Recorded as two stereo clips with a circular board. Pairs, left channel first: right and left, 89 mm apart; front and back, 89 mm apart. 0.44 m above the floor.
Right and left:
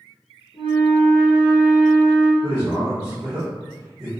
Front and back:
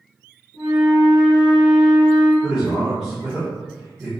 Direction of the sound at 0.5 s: 110° right.